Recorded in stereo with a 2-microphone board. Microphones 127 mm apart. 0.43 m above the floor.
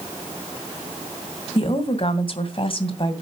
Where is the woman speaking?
45° left (ahead or behind), 2.5 m.